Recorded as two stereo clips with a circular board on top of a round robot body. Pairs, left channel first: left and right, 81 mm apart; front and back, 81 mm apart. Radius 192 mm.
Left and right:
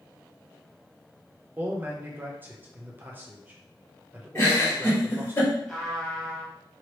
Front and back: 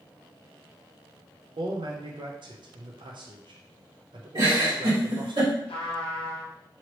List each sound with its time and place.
1.6 s a man speaking: 155° right, 0.6 m
4.3 s a giggle: 150° left, 1.8 m
5.7 s a trumpet: 5° left, 0.7 m